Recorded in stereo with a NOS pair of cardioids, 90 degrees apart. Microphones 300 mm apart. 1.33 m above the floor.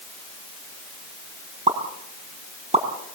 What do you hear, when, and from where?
1.7 s a pop: 20° right, 7 m